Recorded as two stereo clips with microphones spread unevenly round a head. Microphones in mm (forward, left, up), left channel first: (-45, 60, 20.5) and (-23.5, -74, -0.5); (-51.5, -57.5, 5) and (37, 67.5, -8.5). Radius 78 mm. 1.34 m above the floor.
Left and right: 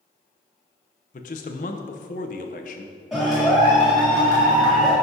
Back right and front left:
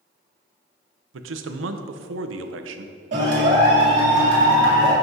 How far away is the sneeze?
No sneeze in this recording.